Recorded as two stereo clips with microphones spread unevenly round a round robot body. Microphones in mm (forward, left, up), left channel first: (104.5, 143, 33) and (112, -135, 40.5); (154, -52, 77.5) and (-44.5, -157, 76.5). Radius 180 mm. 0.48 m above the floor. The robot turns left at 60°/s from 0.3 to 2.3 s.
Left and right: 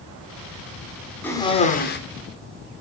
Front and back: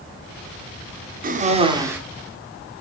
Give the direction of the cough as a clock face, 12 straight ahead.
6 o'clock.